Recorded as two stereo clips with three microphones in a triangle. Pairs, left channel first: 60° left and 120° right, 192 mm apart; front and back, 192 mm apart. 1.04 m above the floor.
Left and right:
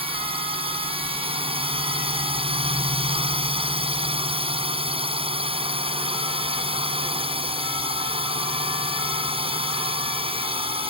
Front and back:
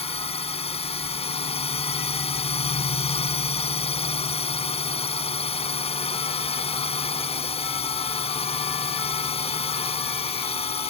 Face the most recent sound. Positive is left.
turn(degrees=-60)